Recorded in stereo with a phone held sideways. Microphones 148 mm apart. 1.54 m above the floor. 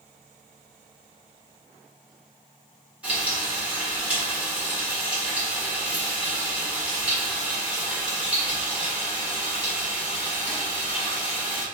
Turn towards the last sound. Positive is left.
turn(degrees=-10)  # may be behind; listen again after turning